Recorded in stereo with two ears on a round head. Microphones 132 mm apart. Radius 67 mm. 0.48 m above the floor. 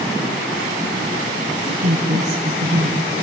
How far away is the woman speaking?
About 2 m.